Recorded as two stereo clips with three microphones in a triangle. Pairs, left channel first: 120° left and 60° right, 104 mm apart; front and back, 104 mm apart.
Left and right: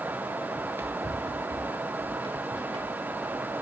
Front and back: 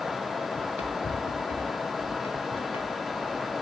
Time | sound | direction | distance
0.6 | running footsteps | 15° left | 1.7 m